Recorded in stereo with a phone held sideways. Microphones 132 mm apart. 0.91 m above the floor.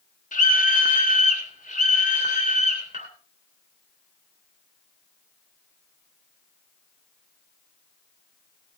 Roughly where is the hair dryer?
I don't hear a hair dryer.